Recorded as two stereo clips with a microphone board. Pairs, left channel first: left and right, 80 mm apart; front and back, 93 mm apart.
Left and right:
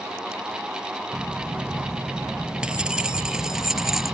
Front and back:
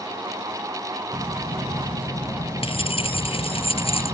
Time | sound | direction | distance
1.1 | keys jangling | 20° right | ?